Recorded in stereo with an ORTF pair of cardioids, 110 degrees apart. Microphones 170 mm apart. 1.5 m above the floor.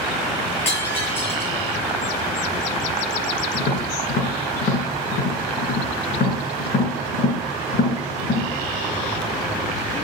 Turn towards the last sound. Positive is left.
turn(degrees=55)